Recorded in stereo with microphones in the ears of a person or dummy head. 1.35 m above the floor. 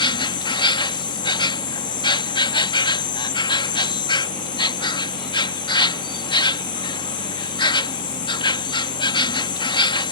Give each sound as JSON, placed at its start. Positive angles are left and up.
{"t": 0.0, "sound": "an insect", "side_deg": 25}